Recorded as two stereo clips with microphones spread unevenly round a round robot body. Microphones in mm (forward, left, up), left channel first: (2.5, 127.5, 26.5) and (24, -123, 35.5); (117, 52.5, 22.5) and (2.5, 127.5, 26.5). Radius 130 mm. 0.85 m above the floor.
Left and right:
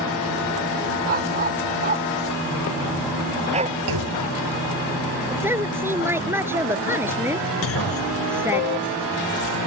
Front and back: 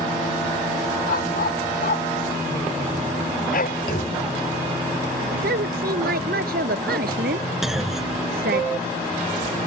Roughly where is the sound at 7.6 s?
Ahead left.